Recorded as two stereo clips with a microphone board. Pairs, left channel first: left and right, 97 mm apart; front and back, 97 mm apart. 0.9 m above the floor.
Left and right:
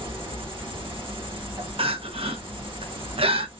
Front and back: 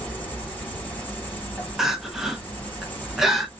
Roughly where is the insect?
Right.